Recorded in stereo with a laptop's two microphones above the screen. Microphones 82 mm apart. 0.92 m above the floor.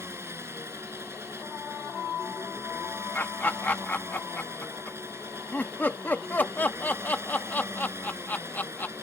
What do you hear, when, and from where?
0.0 s an engine running: 30° right (ahead or behind)
3.1 s laughter: 25° left (ahead or behind)